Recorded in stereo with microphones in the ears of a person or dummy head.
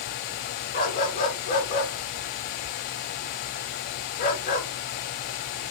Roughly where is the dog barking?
Left.